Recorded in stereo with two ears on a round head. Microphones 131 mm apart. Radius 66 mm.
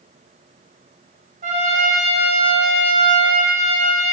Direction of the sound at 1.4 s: 50° right (ahead or behind).